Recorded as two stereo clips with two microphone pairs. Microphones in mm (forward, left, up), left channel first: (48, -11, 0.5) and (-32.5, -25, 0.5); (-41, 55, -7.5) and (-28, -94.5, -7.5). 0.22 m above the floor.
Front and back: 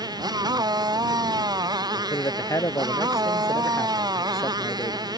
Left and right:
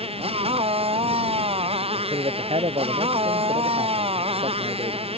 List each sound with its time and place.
0.0 s a motorcycle: 135° right
2.0 s a man speaking: 40° right